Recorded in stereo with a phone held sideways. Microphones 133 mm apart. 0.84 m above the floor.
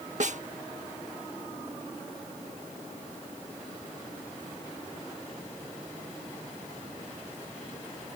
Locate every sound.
0.2 s a snare drum: 60° right (ahead or behind)